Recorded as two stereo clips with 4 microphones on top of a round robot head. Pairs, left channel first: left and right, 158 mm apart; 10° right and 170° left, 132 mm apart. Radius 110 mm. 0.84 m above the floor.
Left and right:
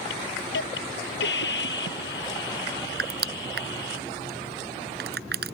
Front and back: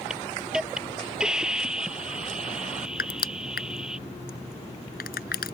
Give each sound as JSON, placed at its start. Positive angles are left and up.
{"t": 0.1, "sound": "a hiss", "azimuth_deg": 85}
{"t": 3.0, "sound": "crushing", "azimuth_deg": -45}